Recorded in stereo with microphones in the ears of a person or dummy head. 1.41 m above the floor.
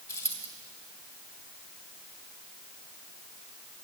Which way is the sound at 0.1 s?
20° left (ahead or behind).